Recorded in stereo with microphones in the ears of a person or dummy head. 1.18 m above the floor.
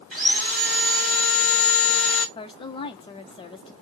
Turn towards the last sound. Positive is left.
turn(degrees=20)  # may be behind; listen again after turning